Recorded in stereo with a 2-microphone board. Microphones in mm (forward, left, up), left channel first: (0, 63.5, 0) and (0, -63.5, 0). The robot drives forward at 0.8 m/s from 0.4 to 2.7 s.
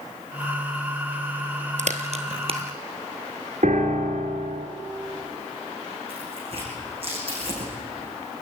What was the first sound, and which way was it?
A crack, 65° right (ahead or behind).